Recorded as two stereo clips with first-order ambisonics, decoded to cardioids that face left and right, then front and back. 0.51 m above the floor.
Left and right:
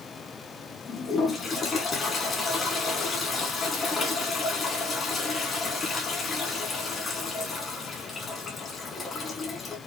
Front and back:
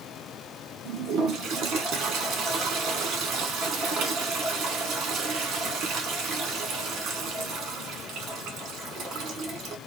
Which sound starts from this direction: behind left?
A toilet flushing, at 0.8 s.